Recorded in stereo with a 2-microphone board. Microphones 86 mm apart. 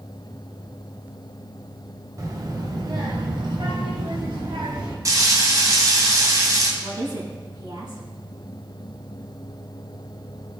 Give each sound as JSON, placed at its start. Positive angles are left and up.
{"t": 2.2, "sound": "a child speaking", "side_deg": -45, "distance_m": 1.9}
{"t": 5.0, "sound": "frying", "side_deg": -40, "distance_m": 2.0}
{"t": 6.8, "sound": "a woman speaking", "side_deg": -65, "distance_m": 4.5}